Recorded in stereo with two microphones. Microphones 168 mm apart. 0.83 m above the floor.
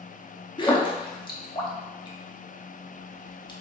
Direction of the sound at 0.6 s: 30° left (ahead or behind).